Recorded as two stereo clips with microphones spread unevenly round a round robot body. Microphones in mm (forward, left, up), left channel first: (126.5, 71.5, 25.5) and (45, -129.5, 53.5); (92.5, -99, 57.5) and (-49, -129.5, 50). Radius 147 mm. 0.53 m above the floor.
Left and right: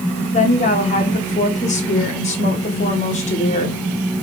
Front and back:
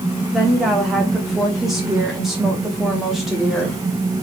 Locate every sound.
0.3 s a woman speaking: 105° left, 1.3 m